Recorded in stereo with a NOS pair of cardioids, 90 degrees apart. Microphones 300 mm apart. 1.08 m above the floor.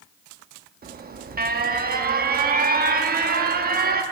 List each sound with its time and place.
0.8 s an alarm: 30° right, 0.9 m